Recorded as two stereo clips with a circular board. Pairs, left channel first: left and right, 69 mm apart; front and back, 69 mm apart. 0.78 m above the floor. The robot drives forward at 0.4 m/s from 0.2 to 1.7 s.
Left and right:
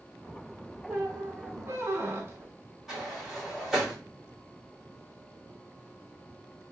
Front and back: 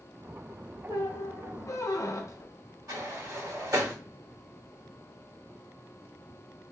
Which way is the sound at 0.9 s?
25° right.